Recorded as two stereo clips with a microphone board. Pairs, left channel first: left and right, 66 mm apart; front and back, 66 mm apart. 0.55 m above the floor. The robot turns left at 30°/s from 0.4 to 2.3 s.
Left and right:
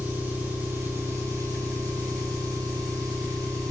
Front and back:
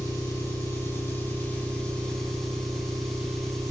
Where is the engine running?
30° right, 3.5 m; by 3.7 s 85° right, 3.5 m.